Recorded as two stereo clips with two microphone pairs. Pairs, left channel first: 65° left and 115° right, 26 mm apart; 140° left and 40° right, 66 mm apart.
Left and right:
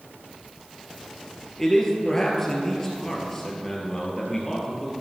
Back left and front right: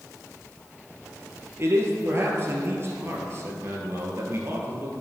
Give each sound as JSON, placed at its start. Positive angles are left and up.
{"t": 1.6, "sound": "a man speaking", "azimuth_deg": -5, "distance_m": 1.7}